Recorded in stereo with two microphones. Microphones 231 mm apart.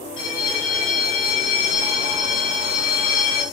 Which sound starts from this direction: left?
A bell, at 0.2 s.